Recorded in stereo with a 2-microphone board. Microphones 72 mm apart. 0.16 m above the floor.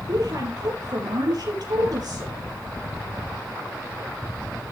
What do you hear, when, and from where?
0.1 s a woman speaking: 65° right (ahead or behind), 4.5 m